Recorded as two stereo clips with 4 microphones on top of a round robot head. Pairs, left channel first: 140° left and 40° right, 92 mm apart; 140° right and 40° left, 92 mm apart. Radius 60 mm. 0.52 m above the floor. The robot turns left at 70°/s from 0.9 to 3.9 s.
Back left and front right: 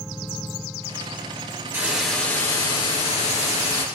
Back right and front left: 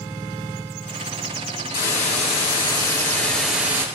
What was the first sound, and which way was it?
A hiss, 110° right.